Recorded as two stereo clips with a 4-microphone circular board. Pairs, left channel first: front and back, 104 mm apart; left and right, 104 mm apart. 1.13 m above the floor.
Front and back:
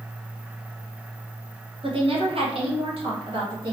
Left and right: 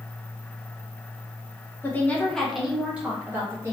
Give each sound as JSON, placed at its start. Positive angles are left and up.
{"t": 1.8, "sound": "a woman speaking", "azimuth_deg": 155, "distance_m": 1.0}